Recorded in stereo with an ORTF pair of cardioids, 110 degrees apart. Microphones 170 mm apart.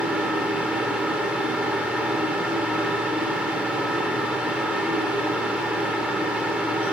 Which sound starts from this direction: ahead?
A fan, at 0.0 s.